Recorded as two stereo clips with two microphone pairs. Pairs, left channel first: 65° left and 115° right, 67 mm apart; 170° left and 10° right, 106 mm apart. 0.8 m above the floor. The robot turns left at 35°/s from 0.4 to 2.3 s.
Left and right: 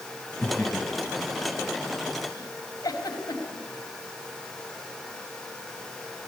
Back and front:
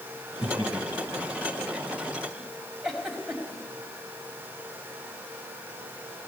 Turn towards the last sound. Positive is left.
turn(degrees=80)